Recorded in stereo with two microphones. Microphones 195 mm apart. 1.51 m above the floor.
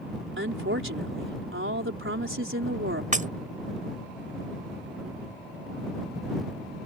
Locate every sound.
0.4 s a woman speaking: 85° right
3.1 s breaking glass: 40° right (ahead or behind)